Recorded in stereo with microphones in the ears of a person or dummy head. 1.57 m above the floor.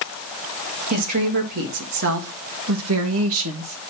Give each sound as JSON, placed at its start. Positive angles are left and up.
{"t": 0.9, "sound": "a woman speaking", "side_deg": -45, "distance_m": 2.5}